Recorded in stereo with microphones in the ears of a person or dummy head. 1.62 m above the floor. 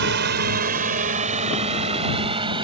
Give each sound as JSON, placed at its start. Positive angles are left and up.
{"t": 0.0, "sound": "a drone", "side_deg": -55}